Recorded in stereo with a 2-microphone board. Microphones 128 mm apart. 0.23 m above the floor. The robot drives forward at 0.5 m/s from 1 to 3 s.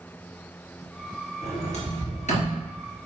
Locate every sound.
1.4 s a sliding door: 60° left (ahead or behind), 3.5 m; by 2.6 s 65° left (ahead or behind), 3.5 m